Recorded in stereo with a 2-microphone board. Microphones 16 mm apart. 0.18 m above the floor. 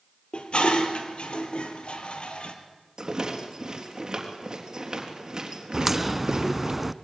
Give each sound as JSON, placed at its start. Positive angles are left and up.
{"t": 0.3, "sound": "dishes clattering", "side_deg": 75, "distance_m": 3.0}
{"t": 3.0, "sound": "a rattle", "side_deg": -35, "distance_m": 3.5}
{"t": 5.7, "sound": "a crack", "side_deg": -10, "distance_m": 0.7}